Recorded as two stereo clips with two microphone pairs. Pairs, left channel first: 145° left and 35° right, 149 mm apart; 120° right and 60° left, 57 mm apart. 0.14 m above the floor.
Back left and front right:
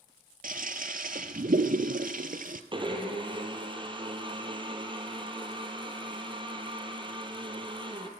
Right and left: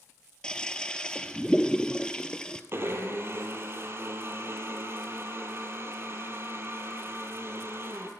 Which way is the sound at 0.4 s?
40° right.